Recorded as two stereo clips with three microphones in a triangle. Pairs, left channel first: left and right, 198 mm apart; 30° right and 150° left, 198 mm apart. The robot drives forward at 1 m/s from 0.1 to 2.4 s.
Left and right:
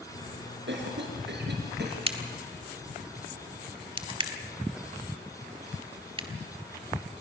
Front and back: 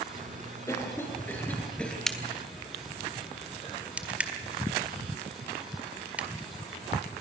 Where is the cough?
105° right, 6 m; by 2.0 s 115° right, 6.5 m.